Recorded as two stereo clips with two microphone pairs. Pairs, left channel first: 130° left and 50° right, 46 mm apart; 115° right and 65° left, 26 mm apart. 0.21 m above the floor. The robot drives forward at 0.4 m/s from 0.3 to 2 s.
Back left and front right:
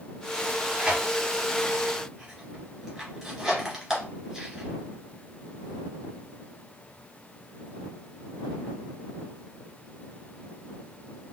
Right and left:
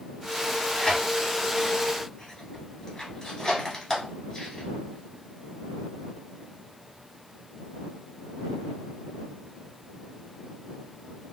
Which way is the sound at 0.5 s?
85° right.